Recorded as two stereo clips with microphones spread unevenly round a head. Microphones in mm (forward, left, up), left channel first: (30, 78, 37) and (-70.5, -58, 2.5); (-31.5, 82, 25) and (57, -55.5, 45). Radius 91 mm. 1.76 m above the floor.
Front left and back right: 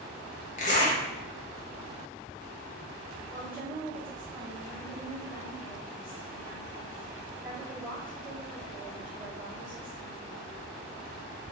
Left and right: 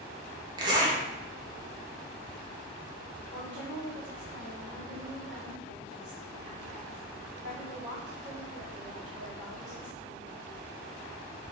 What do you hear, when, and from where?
0.6 s a zipper: 5° left, 0.9 m
3.3 s a woman speaking: 40° right, 2 m